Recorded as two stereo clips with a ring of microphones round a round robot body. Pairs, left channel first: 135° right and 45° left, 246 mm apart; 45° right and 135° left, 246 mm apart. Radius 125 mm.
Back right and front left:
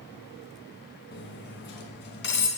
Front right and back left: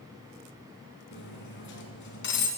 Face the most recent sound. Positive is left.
turn(degrees=-90)